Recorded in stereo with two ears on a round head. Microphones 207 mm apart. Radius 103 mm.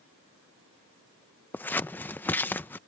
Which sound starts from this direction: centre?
Scissors, at 1.5 s.